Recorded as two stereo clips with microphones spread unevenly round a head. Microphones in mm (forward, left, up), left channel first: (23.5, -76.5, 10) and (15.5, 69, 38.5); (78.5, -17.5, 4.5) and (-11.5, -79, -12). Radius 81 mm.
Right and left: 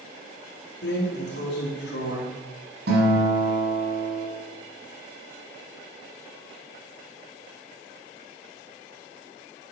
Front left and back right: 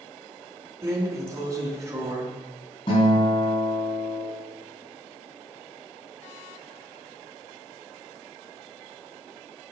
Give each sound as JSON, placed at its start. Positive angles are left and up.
{"t": 0.8, "sound": "a drawer", "azimuth_deg": -80, "distance_m": 3.0}
{"t": 2.9, "sound": "a guitar", "azimuth_deg": 90, "distance_m": 5.5}